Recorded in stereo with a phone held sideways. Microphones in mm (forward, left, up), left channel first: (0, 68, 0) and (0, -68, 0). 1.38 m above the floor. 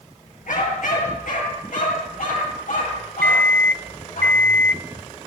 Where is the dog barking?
70° left (ahead or behind), 8 m; by 4.2 s 75° left (ahead or behind), 13 m.